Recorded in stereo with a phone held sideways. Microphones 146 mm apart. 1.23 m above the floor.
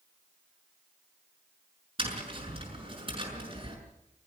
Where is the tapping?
40° right (ahead or behind), 6.5 m.